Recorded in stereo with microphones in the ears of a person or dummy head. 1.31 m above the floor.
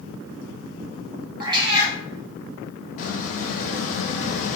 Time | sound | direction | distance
1.4 | a cat meowing | 25° right (ahead or behind) | 1.2 m
3.0 | a squeak | 45° left (ahead or behind) | 0.8 m